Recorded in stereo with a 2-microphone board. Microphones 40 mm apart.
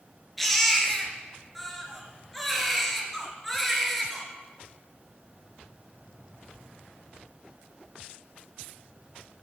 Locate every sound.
0.4 s a baby crying: 5° left (ahead or behind), 2.5 m